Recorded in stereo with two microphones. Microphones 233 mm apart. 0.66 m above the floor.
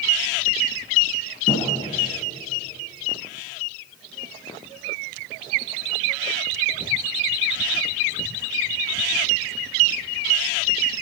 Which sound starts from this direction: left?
A thud, at 1.5 s.